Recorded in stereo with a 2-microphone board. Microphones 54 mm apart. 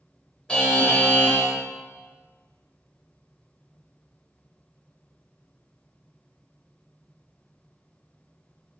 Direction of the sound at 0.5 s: 15° left (ahead or behind).